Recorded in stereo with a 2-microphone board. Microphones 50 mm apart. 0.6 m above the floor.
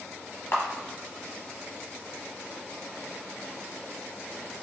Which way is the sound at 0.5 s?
55° left (ahead or behind).